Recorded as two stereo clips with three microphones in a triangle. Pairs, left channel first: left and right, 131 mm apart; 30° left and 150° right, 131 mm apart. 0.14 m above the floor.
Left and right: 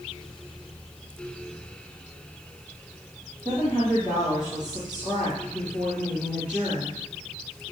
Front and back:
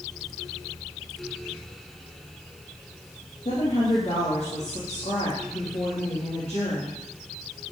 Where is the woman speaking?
10° right, 6 m.